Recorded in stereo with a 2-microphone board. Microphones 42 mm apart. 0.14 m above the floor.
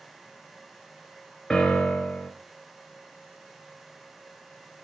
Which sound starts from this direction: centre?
A piano, at 1.5 s.